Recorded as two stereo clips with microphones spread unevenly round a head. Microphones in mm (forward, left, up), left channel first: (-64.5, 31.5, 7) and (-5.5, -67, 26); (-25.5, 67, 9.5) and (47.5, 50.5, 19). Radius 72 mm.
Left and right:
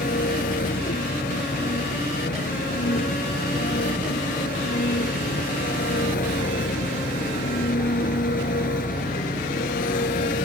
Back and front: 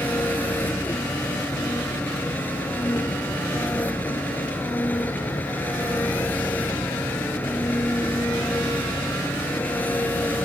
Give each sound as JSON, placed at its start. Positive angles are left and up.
{"t": 0.0, "sound": "an engine running", "azimuth_deg": 100}